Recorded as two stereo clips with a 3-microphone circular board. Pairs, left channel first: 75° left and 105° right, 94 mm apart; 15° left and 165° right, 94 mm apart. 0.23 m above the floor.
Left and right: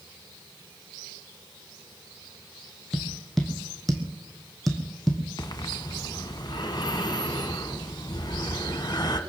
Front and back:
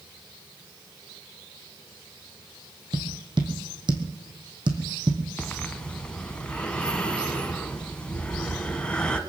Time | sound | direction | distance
2.9 | tapping | 160° left | 2.5 m
5.4 | breathing | 90° left | 1.4 m